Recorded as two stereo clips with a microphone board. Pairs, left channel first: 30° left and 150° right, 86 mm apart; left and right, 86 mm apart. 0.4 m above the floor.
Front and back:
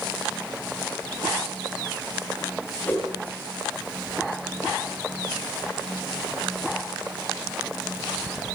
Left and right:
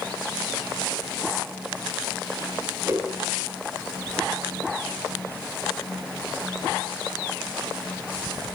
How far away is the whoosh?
About 2.5 m.